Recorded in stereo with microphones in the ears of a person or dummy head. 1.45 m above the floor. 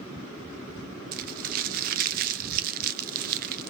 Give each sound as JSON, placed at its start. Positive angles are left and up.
{"t": 1.1, "sound": "crumpling", "side_deg": -55, "distance_m": 1.0}